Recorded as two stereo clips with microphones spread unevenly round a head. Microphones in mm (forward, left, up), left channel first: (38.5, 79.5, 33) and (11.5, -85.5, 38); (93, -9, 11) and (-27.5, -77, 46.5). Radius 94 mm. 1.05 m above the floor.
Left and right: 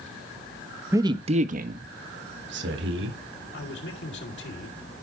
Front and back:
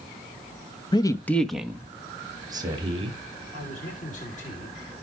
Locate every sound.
0.9 s a man speaking: 25° right, 1.3 m; by 3.2 s 95° right, 3 m
3.5 s a man speaking: 70° left, 4 m